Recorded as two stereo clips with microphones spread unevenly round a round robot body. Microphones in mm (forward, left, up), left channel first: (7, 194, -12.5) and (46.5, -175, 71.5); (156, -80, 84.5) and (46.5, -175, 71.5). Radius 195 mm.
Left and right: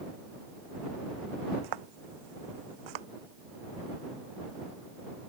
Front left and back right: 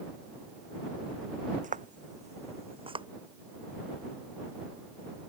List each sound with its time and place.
1.6 s footsteps: 110° right; by 3.1 s 80° right